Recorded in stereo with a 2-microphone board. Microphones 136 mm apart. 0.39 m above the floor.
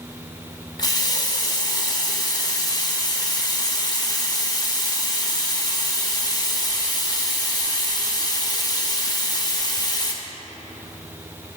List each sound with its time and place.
0.8 s a running tap: 30° left (ahead or behind), 0.6 m